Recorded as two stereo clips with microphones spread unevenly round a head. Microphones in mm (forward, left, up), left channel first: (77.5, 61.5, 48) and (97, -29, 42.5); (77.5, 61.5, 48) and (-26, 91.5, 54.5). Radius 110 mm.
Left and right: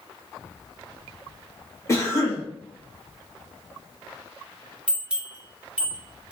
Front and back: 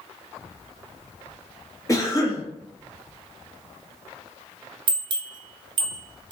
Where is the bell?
155° right, 0.6 m.